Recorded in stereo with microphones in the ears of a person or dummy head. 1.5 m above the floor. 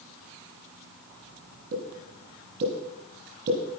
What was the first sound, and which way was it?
A pop, 50° right (ahead or behind).